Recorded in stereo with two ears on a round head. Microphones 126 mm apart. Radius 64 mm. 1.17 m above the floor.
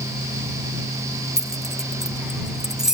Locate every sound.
1.4 s keys jangling: 5° right (ahead or behind)